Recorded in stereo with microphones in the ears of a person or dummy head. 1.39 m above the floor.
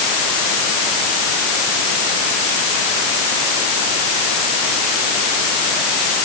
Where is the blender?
No blender in this recording.